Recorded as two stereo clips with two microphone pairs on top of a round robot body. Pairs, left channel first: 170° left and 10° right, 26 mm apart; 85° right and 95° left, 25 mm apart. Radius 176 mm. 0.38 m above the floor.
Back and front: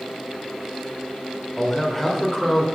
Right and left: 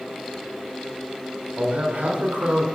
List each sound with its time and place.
1.6 s a man speaking: 85° left, 1.7 m